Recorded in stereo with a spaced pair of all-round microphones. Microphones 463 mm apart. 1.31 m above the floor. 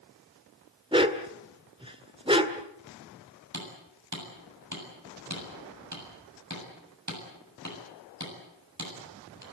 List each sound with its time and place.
0.9 s a dog barking: 10° right (ahead or behind), 1.6 m
3.5 s hammering: 35° right (ahead or behind), 7.5 m